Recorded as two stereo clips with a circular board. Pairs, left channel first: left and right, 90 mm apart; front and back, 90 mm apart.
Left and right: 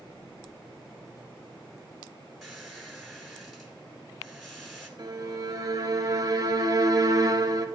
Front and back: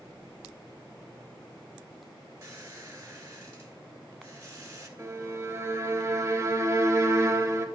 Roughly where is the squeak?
Behind.